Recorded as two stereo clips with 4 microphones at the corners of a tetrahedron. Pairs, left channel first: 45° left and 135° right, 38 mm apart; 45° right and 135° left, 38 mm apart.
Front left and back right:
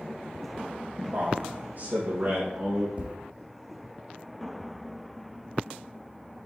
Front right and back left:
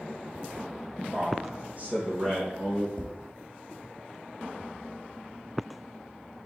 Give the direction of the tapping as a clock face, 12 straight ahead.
3 o'clock.